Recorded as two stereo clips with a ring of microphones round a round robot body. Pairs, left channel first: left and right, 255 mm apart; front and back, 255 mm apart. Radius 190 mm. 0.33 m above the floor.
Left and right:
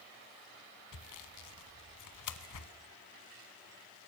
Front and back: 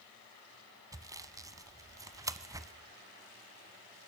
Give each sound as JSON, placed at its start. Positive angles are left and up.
{"t": 0.9, "sound": "sawing", "azimuth_deg": 100, "distance_m": 1.1}